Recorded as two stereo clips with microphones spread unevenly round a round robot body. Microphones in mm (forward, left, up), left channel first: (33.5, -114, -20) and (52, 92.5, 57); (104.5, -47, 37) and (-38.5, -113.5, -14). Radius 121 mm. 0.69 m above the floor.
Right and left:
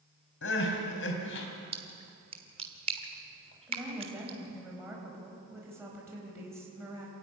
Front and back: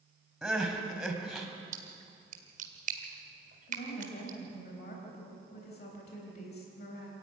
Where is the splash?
155° left, 1.4 m.